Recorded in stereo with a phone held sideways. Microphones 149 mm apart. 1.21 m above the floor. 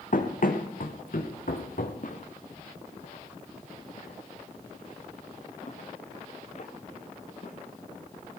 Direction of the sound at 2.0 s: 60° left (ahead or behind).